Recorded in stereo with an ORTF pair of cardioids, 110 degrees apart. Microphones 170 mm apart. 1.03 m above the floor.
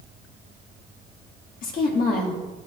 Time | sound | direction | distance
1.6 | a woman speaking | 60° left | 2.5 m